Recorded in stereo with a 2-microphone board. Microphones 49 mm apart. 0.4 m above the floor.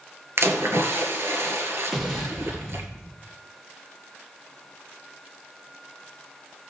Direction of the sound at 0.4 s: 60° right (ahead or behind).